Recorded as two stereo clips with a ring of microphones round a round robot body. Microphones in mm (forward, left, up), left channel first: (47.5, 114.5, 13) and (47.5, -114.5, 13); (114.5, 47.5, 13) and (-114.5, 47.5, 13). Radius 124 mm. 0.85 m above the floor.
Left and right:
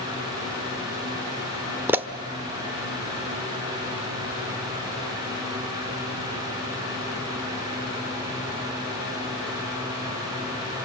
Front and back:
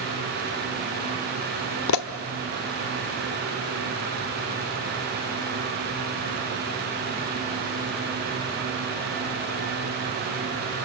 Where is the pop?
10° right, 1.2 m.